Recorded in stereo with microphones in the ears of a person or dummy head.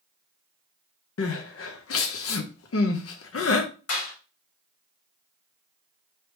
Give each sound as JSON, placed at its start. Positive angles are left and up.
{"t": 1.2, "sound": "crying", "side_deg": 70, "distance_m": 0.6}
{"t": 3.9, "sound": "a clap", "side_deg": 80, "distance_m": 1.9}